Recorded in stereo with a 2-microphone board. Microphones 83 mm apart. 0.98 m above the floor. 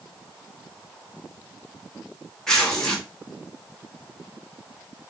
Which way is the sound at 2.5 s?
5° left (ahead or behind).